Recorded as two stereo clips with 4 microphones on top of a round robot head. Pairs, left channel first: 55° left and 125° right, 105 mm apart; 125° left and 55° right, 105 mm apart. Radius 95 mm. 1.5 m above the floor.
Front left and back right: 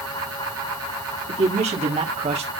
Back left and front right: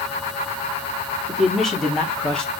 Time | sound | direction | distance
1.3 | a man speaking | 145° right | 3.5 m